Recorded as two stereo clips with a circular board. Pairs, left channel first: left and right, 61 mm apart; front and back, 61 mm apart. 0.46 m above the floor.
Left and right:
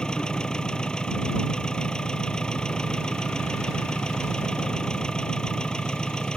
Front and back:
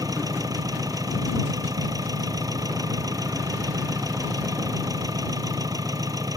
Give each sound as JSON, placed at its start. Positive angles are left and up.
{"t": 0.0, "sound": "an engine running", "azimuth_deg": 165}